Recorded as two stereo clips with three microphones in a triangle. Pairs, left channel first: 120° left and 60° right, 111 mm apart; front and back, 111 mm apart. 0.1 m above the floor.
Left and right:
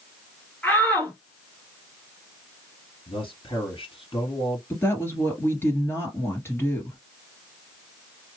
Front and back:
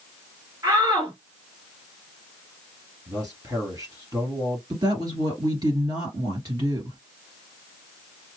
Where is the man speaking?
130° left, 2.5 m.